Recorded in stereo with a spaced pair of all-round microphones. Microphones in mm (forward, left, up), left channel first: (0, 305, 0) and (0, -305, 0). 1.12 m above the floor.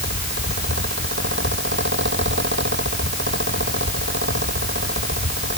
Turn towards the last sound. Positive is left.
turn(degrees=-20)  # may be behind; listen again after turning